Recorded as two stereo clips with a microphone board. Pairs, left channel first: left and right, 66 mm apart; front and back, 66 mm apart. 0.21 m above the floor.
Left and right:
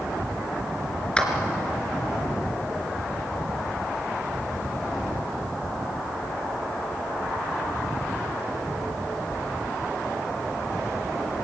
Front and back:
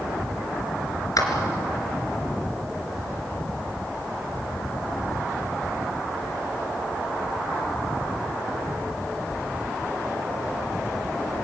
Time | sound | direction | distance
1.2 | a clap | 15° left | 3 m